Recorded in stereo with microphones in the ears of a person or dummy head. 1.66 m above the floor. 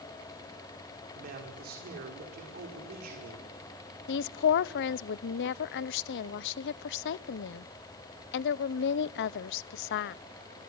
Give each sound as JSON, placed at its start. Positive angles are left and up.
{"t": 1.1, "sound": "a man speaking", "side_deg": -50, "distance_m": 5.0}
{"t": 4.1, "sound": "a woman speaking", "side_deg": 65, "distance_m": 0.7}